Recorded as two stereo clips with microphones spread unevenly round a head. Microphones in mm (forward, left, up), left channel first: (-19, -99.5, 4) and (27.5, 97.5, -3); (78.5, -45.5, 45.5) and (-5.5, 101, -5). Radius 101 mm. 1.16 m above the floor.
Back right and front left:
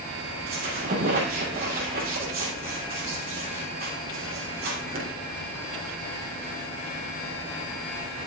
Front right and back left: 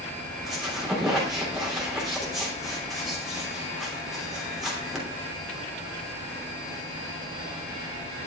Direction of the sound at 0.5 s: 30° left.